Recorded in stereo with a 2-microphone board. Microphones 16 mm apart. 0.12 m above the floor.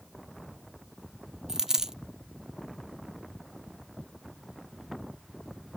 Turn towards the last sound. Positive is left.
turn(degrees=-35)  # may be behind; listen again after turning